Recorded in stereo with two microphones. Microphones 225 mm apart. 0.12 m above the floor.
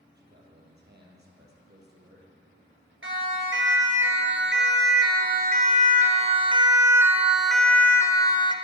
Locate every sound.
0.1 s a man speaking: 50° right (ahead or behind), 4 m
3.0 s a siren: 65° right (ahead or behind), 2.5 m; by 8.5 s 25° left (ahead or behind), 1.4 m